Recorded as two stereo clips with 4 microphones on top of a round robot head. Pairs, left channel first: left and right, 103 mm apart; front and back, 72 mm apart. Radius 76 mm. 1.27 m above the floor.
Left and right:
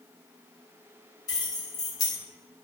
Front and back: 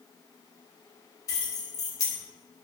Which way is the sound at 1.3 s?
35° left.